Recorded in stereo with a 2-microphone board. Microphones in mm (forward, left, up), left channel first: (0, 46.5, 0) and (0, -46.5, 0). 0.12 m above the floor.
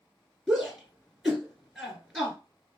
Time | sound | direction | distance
0.5 | a shout | 5° right (ahead or behind) | 1.7 m